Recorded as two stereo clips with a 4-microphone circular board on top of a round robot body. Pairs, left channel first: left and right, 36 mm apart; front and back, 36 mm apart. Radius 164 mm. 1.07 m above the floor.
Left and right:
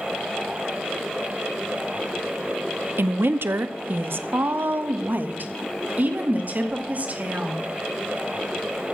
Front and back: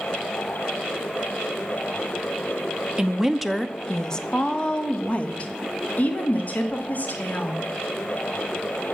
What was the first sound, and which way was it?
A woman speaking, 105° right.